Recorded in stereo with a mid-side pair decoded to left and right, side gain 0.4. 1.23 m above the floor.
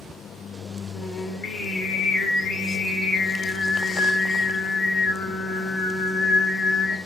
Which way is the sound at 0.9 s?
65° left.